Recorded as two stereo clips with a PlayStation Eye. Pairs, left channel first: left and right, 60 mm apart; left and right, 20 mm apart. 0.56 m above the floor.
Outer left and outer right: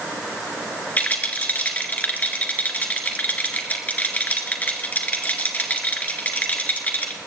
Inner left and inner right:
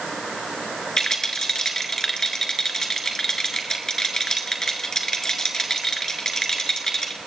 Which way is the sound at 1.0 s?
30° left (ahead or behind).